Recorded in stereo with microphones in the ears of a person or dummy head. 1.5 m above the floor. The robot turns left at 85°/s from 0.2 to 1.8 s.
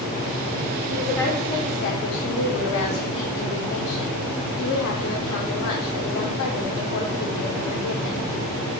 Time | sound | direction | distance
0.9 | a woman speaking | 170° right | 1.6 m